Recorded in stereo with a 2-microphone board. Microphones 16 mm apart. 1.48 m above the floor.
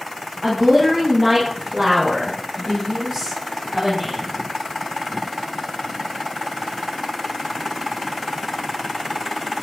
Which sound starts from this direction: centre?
A woman speaking, at 0.4 s.